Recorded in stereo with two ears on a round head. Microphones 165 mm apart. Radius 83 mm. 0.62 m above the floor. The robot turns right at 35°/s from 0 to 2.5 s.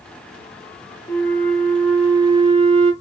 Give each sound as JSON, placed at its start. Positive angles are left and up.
{"t": 1.1, "sound": "a flute", "azimuth_deg": 165, "distance_m": 1.2}